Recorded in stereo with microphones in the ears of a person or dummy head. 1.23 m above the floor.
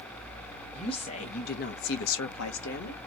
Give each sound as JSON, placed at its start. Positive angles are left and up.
{"t": 0.7, "sound": "a woman speaking", "side_deg": 30, "distance_m": 1.8}